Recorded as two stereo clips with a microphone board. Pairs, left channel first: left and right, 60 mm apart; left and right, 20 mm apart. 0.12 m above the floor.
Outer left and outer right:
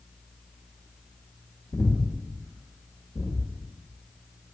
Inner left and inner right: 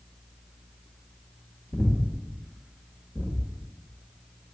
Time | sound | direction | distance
1.7 | breathing | 55° left (ahead or behind) | 0.9 m